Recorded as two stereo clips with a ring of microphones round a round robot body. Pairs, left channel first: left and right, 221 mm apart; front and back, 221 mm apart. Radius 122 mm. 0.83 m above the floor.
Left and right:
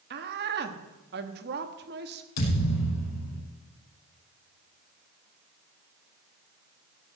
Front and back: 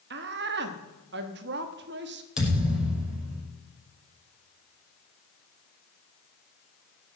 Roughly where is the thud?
Left.